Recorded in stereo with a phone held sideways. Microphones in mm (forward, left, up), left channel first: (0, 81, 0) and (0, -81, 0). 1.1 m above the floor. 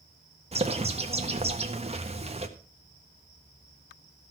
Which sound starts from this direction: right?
A bird, at 0.5 s.